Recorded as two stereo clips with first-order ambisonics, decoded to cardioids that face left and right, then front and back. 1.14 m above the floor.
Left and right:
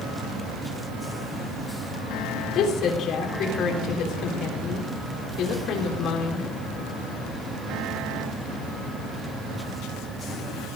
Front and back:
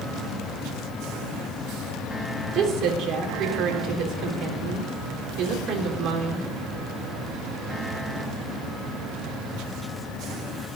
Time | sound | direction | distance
2.5 | a woman speaking | 135° left | 4 m